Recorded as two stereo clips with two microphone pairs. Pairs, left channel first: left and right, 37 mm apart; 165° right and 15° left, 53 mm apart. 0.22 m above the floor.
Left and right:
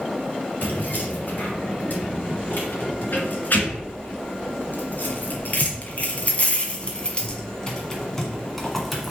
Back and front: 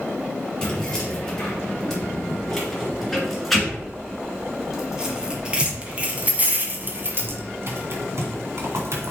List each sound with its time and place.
0.6 s keys jangling: 120° left, 3.5 m; by 9.1 s straight ahead, 1.8 m